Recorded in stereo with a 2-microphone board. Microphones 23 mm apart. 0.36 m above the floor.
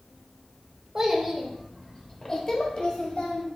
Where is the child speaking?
20° right (ahead or behind), 0.8 m; by 3.5 s 50° left (ahead or behind), 1.3 m.